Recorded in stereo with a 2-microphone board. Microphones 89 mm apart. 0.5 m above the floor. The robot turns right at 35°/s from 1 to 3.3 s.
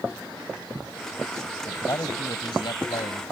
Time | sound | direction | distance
1.7 | a man speaking | 35° left | ?